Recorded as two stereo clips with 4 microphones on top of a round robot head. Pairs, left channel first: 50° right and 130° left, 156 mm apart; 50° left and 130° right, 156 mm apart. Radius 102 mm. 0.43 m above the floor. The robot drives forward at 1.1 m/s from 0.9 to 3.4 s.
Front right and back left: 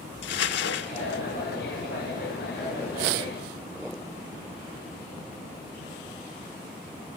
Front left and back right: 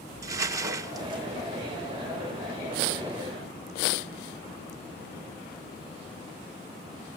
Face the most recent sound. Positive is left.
turn(degrees=-145)